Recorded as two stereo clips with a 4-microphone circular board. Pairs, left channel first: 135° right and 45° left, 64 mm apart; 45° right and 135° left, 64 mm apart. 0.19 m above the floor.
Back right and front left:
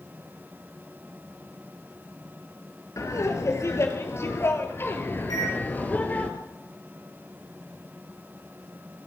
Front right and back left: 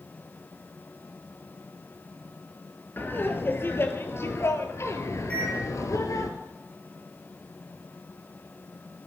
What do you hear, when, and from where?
3.0 s laughter: 100° right, 4 m; by 6.3 s 70° right, 3.5 m
5.3 s a microwave: 115° right, 5.5 m